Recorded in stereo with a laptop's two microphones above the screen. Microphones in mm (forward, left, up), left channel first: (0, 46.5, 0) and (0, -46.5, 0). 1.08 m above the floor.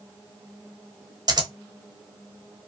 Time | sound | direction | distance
1.3 | scissors | 45° right (ahead or behind) | 0.9 m